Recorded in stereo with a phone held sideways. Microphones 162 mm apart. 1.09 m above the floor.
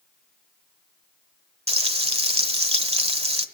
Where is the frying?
40° right (ahead or behind), 1.2 m.